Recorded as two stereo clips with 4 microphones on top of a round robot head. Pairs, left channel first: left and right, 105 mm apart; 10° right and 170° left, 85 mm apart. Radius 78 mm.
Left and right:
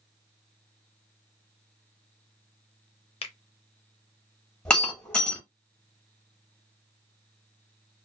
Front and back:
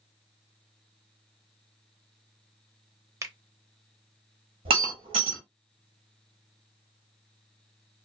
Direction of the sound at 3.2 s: 120° left.